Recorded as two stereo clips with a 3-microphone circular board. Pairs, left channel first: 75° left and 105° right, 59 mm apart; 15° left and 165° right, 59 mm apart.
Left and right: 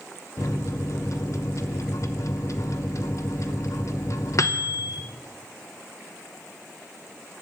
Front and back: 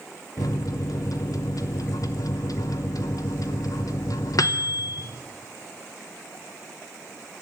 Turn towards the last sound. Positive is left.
turn(degrees=40)